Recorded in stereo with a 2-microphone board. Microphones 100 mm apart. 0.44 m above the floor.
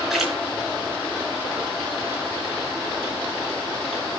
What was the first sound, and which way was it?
A splash, 5° right (ahead or behind).